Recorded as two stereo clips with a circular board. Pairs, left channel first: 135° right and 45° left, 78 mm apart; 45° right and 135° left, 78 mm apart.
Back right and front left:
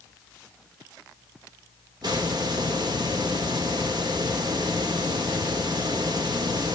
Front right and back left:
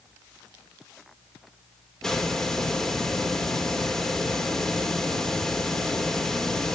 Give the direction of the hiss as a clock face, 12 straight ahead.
11 o'clock.